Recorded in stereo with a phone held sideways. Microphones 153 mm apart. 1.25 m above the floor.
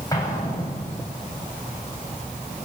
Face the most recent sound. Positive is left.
turn(degrees=20)  # may be behind; listen again after turning